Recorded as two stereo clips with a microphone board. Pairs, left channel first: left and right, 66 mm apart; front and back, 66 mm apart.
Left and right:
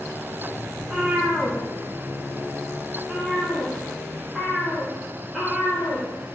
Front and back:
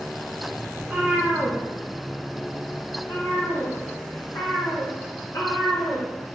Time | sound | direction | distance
0.8 | a cat meowing | 140° right | 1.1 m